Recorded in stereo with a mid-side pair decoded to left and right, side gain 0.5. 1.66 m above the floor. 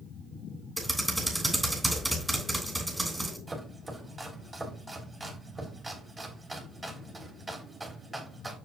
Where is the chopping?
25° right, 3 m.